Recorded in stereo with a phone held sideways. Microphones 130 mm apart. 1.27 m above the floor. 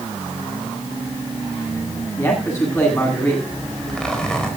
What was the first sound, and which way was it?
A man speaking, 20° left (ahead or behind).